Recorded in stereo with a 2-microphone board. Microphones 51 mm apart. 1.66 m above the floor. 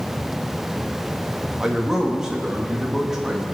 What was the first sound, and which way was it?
A man speaking, 10° right (ahead or behind).